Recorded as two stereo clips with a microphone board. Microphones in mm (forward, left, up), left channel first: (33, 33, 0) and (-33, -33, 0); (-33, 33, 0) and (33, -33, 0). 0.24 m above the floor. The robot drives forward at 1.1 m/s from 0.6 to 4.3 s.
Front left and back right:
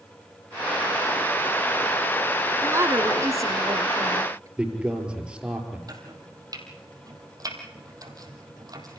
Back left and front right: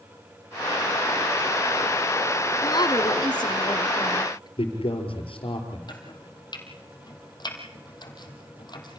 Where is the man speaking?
145° left, 5 m.